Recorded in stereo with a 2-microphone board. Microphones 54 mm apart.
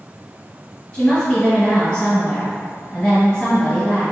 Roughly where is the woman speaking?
Centre.